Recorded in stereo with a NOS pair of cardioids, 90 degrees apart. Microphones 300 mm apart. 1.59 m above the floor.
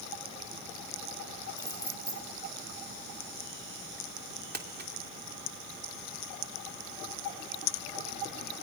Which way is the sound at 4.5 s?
35° right.